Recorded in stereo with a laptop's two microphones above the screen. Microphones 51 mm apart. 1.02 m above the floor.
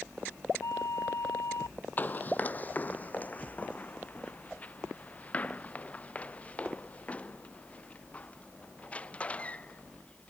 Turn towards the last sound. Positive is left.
turn(degrees=20)  # may be behind; listen again after turning